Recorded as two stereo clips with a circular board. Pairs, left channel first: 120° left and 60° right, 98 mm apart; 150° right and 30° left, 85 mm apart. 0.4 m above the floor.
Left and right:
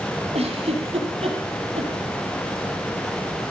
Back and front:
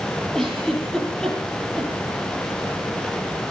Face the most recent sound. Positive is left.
turn(degrees=-65)